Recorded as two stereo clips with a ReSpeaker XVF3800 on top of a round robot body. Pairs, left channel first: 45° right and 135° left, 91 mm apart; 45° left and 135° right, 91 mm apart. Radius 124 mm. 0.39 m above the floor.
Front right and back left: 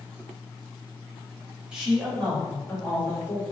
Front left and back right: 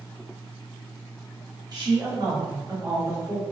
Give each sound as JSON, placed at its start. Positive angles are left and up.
{"t": 1.7, "sound": "a woman speaking", "azimuth_deg": -145, "distance_m": 1.8}